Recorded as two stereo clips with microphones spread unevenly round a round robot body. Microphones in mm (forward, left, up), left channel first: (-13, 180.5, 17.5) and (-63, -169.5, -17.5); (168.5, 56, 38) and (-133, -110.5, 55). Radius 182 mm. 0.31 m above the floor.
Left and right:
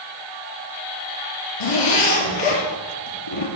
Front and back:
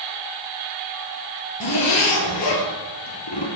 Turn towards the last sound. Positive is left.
turn(degrees=75)